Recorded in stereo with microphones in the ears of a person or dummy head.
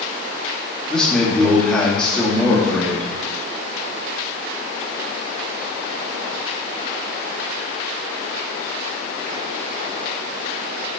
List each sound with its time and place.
0.9 s a man speaking: 5° left (ahead or behind), 2.5 m